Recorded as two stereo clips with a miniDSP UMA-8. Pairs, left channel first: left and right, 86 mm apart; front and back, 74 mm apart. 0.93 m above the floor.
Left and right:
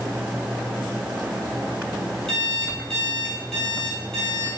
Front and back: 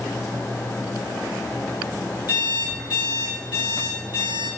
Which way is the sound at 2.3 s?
10° left.